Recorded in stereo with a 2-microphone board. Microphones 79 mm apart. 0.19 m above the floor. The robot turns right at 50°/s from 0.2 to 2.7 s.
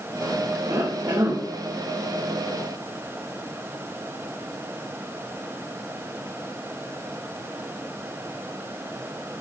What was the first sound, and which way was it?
A cough, 75° right.